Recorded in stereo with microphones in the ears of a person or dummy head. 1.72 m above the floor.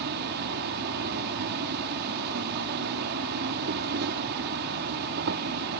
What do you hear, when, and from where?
0.0 s an insect: 60° right (ahead or behind)